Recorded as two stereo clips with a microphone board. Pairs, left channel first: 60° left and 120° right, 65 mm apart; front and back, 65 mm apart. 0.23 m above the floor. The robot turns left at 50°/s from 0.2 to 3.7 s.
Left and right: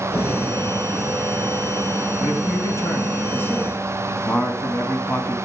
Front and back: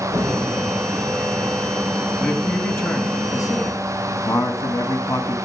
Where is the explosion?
150° left, 3.5 m; by 0.9 s 115° left, 3.5 m.